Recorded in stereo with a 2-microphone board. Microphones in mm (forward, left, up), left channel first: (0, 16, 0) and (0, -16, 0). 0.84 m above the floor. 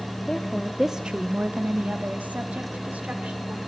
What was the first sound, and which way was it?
A woman speaking, 20° left (ahead or behind).